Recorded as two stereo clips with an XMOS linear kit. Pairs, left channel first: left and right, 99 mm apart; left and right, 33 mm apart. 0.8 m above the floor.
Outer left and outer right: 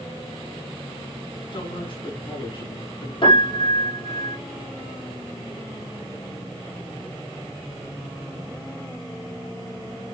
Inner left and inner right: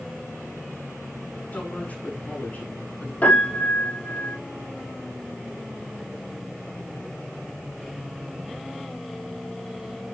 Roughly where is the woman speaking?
Left.